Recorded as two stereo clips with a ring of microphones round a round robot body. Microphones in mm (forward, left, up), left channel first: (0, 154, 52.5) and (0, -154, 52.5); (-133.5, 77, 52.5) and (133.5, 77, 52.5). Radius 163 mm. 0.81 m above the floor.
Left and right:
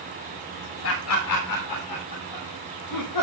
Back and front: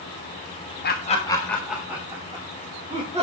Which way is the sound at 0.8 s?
130° left.